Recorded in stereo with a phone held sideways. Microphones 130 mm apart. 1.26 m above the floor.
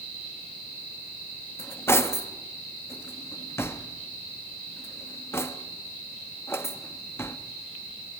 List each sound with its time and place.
1.6 s cutlery clinking: 20° left (ahead or behind), 1.0 m